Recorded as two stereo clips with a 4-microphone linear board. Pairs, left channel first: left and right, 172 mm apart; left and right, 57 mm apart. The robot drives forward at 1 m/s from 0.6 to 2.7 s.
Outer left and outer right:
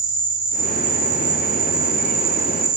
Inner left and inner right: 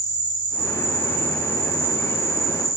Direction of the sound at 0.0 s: 30° right (ahead or behind).